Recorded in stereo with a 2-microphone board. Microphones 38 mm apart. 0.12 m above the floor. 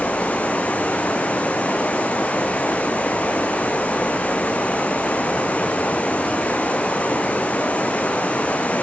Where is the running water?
35° left (ahead or behind), 1.1 m.